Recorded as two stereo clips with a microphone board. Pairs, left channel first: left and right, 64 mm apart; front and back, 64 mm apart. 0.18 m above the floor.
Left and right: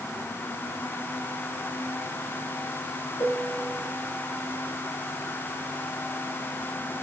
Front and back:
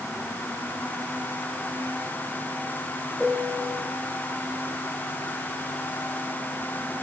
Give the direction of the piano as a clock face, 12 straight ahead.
9 o'clock.